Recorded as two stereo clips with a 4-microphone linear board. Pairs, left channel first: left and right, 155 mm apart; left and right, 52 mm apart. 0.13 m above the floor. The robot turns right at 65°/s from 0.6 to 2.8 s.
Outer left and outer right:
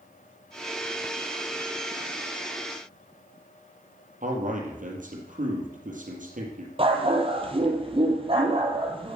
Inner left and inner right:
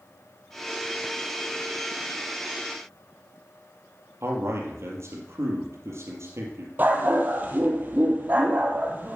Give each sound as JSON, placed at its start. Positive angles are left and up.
{"t": 4.2, "sound": "a man speaking", "side_deg": -60, "distance_m": 3.5}
{"t": 6.8, "sound": "a dog barking", "side_deg": -35, "distance_m": 1.8}